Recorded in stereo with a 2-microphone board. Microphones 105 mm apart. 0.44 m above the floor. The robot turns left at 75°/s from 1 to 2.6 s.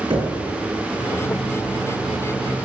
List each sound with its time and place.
0.1 s knocking: 55° right (ahead or behind), 5.5 m